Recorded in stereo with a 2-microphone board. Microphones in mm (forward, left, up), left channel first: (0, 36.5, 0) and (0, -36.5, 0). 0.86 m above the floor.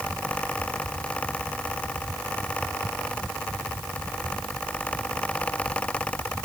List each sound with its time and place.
Only background noise.